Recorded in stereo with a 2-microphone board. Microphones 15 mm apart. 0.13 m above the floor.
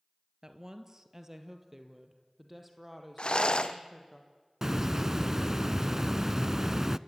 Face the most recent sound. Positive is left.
turn(degrees=-25)  # may be behind; listen again after turning